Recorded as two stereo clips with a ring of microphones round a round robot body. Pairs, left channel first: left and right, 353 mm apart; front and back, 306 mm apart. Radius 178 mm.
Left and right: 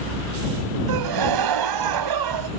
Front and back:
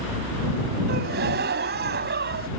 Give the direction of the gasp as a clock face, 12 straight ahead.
4 o'clock.